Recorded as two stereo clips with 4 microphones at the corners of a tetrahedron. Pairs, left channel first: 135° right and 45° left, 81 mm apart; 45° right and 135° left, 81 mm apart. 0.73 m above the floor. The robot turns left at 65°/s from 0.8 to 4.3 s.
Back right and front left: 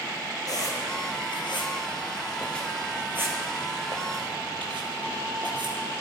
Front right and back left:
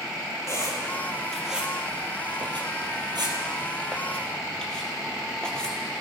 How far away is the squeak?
About 3 m.